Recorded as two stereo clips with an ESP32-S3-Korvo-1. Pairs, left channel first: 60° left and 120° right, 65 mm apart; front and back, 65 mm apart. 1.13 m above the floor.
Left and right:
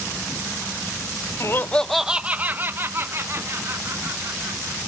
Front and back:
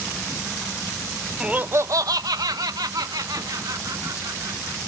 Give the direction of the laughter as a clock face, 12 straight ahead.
9 o'clock.